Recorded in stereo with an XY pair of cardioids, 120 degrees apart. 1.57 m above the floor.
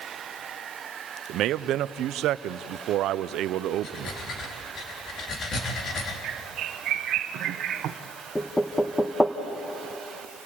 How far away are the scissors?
I don't hear scissors.